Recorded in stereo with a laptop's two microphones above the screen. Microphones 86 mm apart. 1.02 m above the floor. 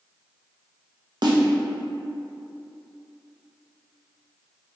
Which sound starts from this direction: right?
A snare drum, at 1.2 s.